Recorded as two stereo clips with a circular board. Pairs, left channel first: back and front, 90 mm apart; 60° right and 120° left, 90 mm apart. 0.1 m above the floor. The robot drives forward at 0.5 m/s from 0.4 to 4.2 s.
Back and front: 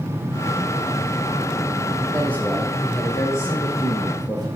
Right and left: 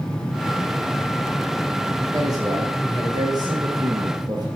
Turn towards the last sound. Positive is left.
turn(degrees=140)